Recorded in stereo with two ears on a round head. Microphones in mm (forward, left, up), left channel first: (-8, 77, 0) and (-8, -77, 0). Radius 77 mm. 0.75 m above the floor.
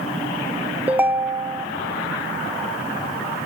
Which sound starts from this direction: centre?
A ringtone, at 0.9 s.